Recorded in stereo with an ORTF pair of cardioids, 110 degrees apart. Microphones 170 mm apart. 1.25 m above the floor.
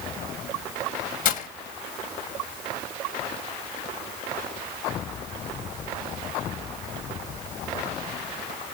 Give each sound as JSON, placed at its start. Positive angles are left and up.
{"t": 1.2, "sound": "breaking glass", "azimuth_deg": 55, "distance_m": 3.0}